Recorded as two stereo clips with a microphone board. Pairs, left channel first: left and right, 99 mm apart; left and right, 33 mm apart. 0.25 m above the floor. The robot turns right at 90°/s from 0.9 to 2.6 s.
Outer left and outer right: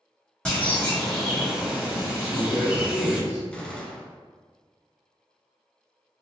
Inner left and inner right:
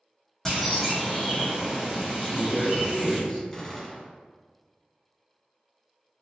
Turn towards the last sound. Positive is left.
turn(degrees=10)  # may be behind; listen again after turning